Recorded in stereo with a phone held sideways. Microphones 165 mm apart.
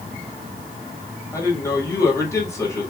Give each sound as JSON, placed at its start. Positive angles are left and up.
{"t": 1.3, "sound": "a man speaking", "side_deg": 15, "distance_m": 2.0}